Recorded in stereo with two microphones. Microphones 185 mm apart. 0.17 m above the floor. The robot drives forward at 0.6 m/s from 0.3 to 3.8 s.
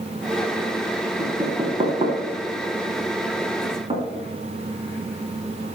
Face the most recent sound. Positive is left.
turn(degrees=-30)  # may be behind; listen again after turning